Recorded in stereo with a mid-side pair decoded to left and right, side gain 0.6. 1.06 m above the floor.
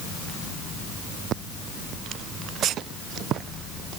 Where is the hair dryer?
I don't hear a hair dryer.